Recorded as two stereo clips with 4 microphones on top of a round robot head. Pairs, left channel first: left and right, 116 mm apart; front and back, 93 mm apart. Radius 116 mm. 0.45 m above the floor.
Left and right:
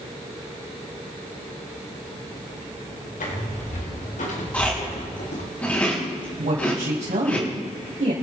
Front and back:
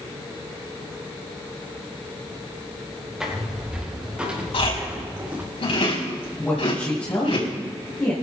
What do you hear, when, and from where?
3.2 s footsteps: 95° left, 5.5 m; by 5.4 s 110° left, 4 m
4.5 s chewing: 10° left, 4.5 m
6.4 s a woman speaking: 70° right, 3.5 m